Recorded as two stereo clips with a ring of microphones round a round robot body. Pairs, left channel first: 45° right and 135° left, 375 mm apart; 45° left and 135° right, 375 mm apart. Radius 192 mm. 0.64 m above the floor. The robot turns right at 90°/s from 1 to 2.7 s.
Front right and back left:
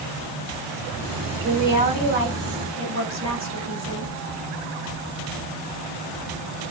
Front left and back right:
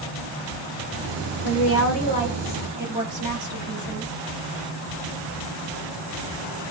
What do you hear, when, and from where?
1.4 s a woman speaking: 40° left, 1.3 m; by 4.1 s 155° left, 1.3 m